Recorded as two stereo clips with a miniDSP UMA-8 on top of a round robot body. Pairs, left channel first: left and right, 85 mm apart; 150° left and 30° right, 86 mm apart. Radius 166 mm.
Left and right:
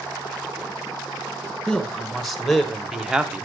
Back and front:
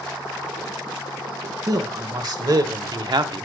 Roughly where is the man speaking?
Ahead.